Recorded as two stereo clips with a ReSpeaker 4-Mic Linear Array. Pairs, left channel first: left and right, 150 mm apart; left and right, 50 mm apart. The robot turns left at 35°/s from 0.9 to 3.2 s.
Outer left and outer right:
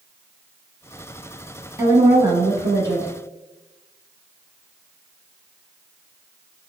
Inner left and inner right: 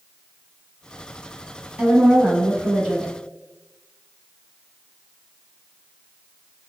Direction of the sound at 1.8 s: 25° right (ahead or behind).